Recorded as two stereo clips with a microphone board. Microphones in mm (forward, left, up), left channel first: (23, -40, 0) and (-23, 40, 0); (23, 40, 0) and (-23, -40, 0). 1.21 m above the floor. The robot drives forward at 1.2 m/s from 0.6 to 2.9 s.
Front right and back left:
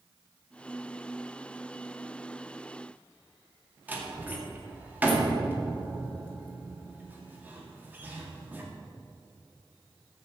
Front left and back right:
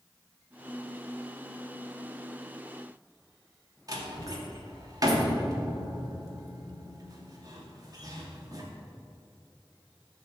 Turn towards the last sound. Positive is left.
turn(degrees=-165)